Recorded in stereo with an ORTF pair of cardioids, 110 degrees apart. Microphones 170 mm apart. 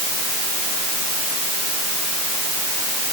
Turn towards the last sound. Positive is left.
No sound to turn to.